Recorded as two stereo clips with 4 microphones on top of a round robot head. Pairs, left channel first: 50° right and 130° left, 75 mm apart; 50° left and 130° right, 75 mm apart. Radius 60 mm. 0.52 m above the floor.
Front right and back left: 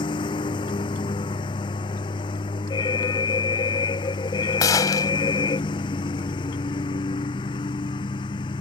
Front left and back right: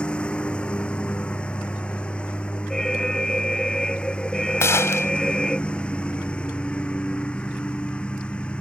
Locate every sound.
0.0 s a lawn mower: 25° right
2.7 s an alarm: 30° right
4.6 s a gunshot: 5° right